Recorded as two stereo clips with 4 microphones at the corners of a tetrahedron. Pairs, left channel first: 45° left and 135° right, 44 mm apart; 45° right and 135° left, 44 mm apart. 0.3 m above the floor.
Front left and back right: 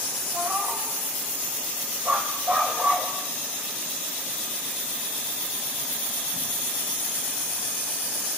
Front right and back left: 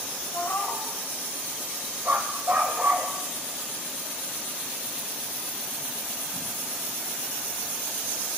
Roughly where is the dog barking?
Behind.